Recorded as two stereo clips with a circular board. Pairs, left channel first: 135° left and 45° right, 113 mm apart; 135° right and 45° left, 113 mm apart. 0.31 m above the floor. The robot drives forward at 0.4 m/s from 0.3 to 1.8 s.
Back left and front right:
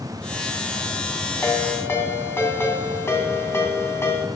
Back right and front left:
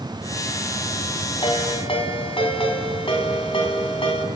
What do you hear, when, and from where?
1.4 s a ringtone: 160° right, 1.9 m